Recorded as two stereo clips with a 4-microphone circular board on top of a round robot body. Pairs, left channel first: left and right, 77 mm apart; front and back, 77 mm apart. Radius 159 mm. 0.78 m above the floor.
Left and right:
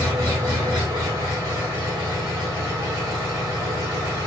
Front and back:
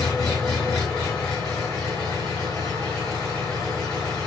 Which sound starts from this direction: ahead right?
An engine running, at 0.0 s.